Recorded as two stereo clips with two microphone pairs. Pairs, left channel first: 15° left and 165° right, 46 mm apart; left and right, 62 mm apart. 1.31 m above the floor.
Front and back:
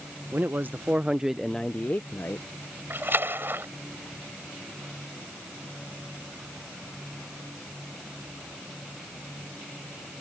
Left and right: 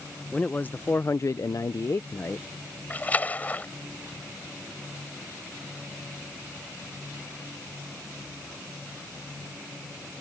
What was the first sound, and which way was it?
A man speaking, 155° left.